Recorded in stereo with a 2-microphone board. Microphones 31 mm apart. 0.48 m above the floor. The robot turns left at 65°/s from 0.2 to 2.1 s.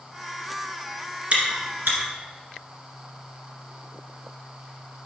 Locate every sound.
1.3 s chewing: 40° right (ahead or behind), 1.7 m; by 2.0 s 80° right, 1.7 m